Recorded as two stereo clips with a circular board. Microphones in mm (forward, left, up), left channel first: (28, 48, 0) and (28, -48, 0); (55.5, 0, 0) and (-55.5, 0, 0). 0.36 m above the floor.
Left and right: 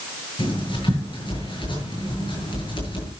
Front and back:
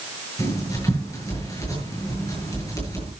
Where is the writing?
60° left, 8 m.